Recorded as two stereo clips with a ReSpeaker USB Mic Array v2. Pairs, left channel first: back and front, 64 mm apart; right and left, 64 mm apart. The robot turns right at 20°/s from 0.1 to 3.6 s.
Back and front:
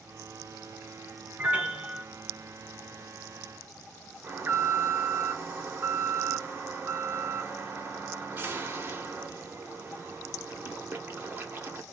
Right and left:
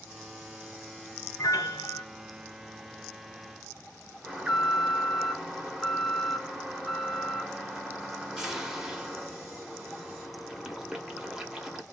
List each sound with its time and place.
1.4 s a piano: 65° right, 0.8 m; by 2.0 s 55° right, 0.8 m
4.2 s an alarm: 15° left, 0.8 m